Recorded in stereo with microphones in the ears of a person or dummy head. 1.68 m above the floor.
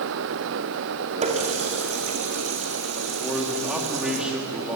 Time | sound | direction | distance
1.2 | a running tap | 35° right (ahead or behind) | 2.5 m
3.2 | a man speaking | 5° right (ahead or behind) | 3 m